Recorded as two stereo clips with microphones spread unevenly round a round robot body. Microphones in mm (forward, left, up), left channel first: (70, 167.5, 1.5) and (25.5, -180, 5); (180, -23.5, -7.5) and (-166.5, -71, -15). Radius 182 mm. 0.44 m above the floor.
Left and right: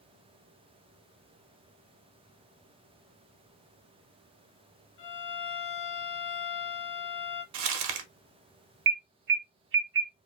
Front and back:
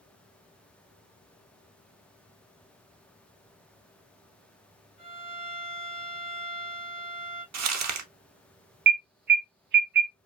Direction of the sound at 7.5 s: 125° right.